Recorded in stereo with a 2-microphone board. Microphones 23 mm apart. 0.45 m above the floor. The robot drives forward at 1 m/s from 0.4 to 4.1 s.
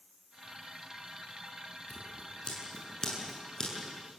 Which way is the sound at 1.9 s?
35° left (ahead or behind).